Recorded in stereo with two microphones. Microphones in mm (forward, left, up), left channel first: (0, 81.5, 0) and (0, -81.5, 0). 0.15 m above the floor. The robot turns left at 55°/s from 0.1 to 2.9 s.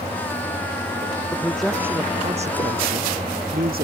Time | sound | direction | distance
1.3 | a man speaking | 15° left | ?